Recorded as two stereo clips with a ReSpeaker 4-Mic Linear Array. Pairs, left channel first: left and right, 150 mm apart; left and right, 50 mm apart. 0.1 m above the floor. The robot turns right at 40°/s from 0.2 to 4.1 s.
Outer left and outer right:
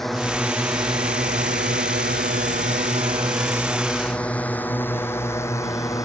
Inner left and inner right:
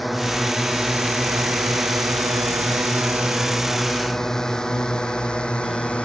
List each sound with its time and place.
0.0 s a drone: centre (ahead or behind); by 6.0 s 20° left (ahead or behind)